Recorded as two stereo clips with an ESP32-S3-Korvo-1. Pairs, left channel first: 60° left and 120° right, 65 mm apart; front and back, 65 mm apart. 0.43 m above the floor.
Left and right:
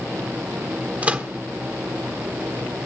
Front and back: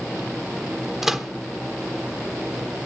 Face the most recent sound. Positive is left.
turn(degrees=-105)